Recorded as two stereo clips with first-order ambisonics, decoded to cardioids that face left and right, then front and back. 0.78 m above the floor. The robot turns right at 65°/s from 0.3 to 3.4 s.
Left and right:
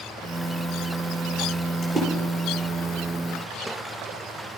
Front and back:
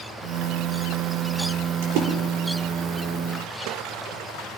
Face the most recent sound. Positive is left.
turn(degrees=-65)